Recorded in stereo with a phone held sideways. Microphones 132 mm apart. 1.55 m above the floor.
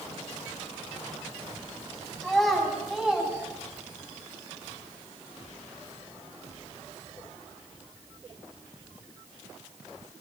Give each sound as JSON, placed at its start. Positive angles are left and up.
{"t": 2.2, "sound": "a child speaking", "side_deg": 5, "distance_m": 8.0}